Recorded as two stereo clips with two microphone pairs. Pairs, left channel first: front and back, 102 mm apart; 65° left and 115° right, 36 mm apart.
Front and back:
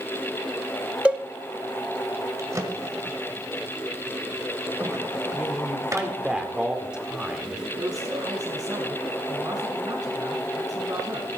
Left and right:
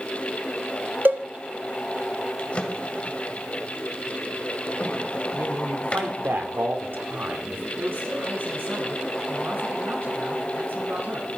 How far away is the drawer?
About 1.9 m.